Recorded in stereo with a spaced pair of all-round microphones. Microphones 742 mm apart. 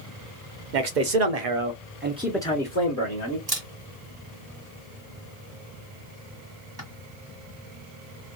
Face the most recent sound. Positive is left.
turn(degrees=-35)  # may be behind; listen again after turning